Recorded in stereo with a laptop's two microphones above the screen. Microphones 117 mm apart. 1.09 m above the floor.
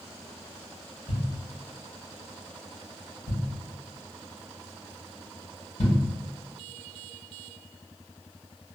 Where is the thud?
75° left (ahead or behind), 1.8 m.